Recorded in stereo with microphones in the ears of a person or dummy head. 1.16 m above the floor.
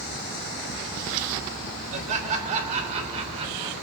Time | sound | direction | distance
1.9 | laughter | 40° right (ahead or behind) | 4.5 m